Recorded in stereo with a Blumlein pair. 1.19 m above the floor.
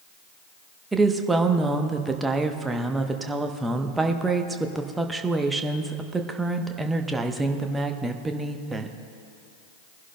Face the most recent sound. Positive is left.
turn(degrees=-10)